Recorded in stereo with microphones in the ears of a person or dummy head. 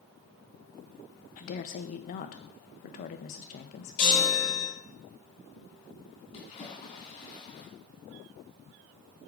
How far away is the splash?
About 3.5 m.